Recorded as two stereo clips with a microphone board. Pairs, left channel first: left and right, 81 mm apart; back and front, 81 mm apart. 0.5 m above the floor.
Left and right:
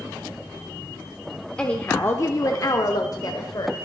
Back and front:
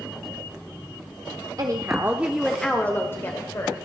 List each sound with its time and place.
1.6 s a woman speaking: 15° left, 1.1 m; by 3.8 s 130° left, 1.9 m